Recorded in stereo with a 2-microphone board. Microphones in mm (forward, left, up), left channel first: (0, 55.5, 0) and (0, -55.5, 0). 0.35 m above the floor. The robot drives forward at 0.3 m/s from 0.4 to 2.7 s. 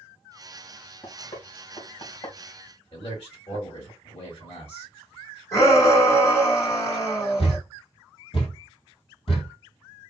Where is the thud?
55° left (ahead or behind), 1.7 m.